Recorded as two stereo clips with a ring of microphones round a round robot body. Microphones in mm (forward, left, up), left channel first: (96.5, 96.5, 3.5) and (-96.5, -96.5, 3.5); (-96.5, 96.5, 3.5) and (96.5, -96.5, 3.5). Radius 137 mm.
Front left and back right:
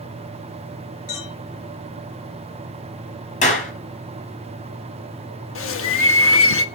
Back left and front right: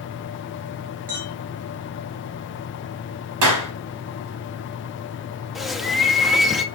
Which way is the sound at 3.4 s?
20° right.